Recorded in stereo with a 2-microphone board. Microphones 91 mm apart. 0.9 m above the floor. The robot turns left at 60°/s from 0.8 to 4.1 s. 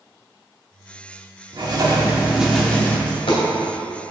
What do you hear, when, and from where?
1.5 s writing: 120° right, 1.3 m; by 3.0 s 155° left, 1.3 m
3.1 s a dropped coin: 75° left (ahead or behind), 2 m; by 3.4 s 80° left, 2 m